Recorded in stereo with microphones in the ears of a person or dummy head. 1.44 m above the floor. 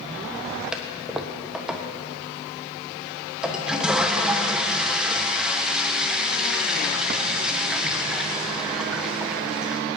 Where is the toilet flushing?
5° right (ahead or behind), 1.2 m.